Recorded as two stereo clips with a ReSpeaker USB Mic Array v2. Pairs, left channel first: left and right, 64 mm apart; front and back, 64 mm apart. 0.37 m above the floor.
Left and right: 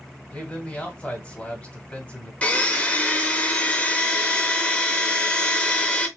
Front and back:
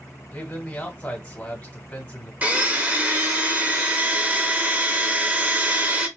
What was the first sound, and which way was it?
A man speaking, 50° left.